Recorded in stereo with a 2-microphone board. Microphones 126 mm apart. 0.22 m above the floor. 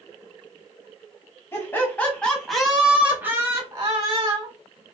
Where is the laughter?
20° left (ahead or behind), 1.4 m; by 4.5 s 40° right (ahead or behind), 1.5 m.